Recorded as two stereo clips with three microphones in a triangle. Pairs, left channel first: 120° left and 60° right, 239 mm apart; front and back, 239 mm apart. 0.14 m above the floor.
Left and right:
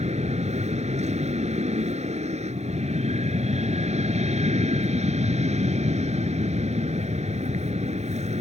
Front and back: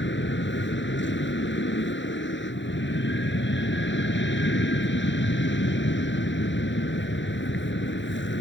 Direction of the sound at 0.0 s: 5° right.